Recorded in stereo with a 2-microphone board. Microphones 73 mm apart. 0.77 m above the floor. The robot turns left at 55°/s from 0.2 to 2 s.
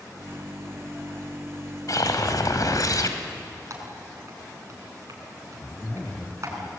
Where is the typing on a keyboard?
45° right (ahead or behind), 5 m.